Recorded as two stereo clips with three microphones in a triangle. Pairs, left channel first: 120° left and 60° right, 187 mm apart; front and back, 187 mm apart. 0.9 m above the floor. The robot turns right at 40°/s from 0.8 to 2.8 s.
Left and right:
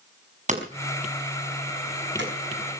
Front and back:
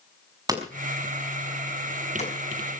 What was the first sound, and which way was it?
Hammering, 110° right.